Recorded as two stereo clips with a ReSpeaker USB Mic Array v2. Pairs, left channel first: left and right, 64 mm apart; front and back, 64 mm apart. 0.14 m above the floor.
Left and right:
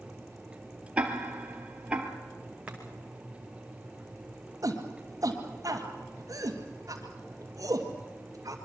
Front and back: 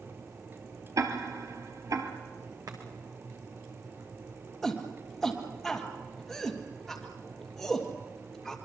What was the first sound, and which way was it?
Ticking, 160° right.